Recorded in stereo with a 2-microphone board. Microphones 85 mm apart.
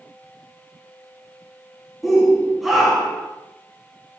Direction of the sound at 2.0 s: Centre (ahead or behind).